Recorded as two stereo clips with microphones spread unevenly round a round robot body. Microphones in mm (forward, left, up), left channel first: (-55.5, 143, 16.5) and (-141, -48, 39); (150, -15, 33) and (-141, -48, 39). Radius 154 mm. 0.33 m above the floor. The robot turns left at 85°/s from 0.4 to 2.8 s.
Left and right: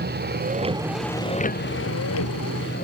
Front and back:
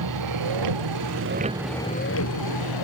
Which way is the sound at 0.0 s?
155° right.